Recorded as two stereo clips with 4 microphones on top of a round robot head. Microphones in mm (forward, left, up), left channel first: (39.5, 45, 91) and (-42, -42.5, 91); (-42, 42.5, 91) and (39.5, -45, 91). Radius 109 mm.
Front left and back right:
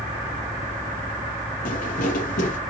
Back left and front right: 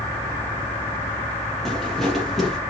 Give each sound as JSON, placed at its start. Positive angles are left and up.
{"t": 1.6, "sound": "footsteps", "azimuth_deg": 45, "distance_m": 3.0}